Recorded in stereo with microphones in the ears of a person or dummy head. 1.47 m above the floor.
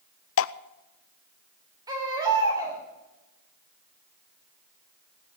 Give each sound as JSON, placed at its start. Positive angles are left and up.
{"t": 0.4, "sound": "dripping", "side_deg": 65, "distance_m": 0.6}
{"t": 1.9, "sound": "a baby crying", "side_deg": -20, "distance_m": 4.5}